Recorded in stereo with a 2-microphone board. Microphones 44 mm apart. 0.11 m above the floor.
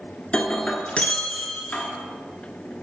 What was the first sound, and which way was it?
Breaking glass, 25° left (ahead or behind).